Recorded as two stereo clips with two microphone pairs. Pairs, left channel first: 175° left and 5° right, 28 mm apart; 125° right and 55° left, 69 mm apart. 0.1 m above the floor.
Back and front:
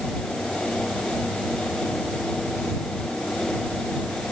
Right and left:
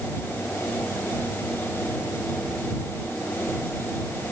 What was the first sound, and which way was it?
Only background noise.